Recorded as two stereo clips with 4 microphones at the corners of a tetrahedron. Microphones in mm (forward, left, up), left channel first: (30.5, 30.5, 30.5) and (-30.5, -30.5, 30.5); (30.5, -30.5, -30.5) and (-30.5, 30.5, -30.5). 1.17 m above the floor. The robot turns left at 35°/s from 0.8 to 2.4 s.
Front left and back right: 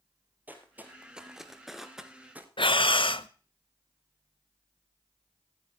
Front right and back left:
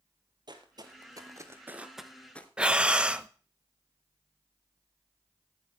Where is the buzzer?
No buzzer in this recording.